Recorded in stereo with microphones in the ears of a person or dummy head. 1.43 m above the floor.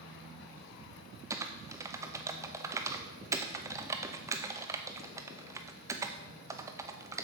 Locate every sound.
1.3 s typing on a keyboard: 15° right (ahead or behind), 0.6 m